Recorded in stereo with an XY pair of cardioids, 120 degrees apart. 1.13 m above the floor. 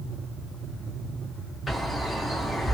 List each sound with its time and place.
1.7 s a bird: 5° left, 1.8 m